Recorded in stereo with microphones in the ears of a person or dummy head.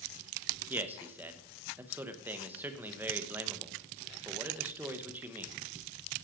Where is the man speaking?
10° right (ahead or behind), 0.9 m.